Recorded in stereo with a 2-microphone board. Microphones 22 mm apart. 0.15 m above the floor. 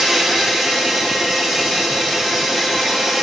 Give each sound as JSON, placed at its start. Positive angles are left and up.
{"t": 0.0, "sound": "an insect", "side_deg": -15, "distance_m": 3.5}